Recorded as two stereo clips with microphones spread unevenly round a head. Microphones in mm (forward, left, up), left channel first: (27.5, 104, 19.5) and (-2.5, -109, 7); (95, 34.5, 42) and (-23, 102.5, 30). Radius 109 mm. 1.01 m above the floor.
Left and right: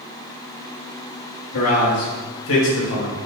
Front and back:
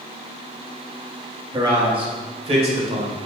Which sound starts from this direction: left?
A man speaking, at 1.5 s.